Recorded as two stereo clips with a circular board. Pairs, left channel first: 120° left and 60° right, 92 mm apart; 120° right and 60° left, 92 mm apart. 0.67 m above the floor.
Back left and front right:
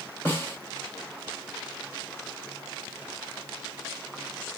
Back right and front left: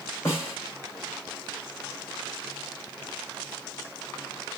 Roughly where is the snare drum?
Behind.